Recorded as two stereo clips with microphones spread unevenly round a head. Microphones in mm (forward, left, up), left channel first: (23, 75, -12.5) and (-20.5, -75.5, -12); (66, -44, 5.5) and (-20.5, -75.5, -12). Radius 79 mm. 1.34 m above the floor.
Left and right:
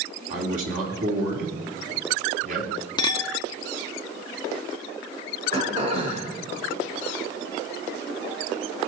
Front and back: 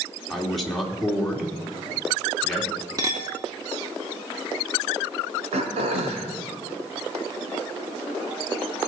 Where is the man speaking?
65° right, 3 m.